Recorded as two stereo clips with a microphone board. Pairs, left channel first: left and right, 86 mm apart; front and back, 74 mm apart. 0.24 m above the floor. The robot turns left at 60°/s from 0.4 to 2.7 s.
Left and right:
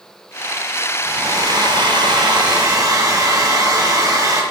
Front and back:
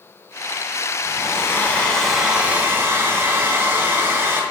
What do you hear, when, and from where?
1.1 s a hair dryer: 30° right, 2.5 m; by 4.4 s 130° right, 2.5 m